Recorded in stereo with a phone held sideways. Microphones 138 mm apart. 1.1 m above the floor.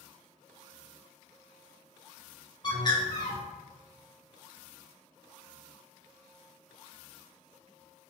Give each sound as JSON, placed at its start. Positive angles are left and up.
{"t": 2.6, "sound": "a bird", "side_deg": 35, "distance_m": 0.6}